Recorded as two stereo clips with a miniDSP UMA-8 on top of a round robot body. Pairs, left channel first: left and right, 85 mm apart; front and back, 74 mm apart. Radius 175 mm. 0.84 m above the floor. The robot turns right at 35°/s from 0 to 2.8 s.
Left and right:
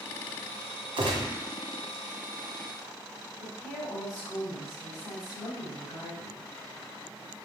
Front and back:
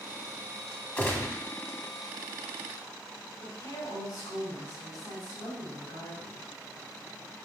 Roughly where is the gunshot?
Ahead right.